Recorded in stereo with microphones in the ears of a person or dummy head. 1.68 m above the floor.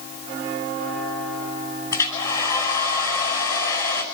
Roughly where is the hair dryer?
Centre.